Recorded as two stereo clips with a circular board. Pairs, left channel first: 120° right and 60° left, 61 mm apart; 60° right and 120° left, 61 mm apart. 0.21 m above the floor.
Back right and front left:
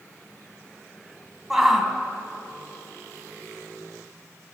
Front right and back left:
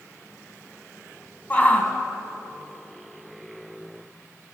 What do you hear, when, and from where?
1.5 s a shout: 20° right, 1.6 m